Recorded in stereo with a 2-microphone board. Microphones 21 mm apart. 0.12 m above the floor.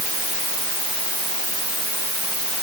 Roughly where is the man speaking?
I don't hear a man speaking.